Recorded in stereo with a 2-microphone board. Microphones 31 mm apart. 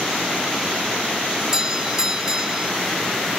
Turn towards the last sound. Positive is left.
turn(degrees=-15)  # may be behind; listen again after turning